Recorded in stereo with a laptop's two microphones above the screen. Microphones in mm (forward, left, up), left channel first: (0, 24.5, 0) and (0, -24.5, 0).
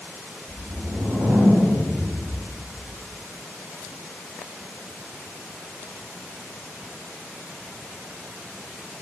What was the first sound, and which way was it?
A whoosh, 25° right (ahead or behind).